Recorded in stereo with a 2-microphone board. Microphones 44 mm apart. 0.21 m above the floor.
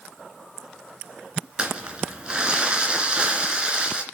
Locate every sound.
1.6 s crumpling: 25° right (ahead or behind), 2.5 m